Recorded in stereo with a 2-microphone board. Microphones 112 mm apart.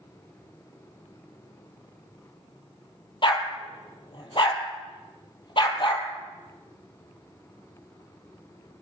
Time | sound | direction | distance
3.2 | a dog barking | 45° left (ahead or behind) | 2.5 m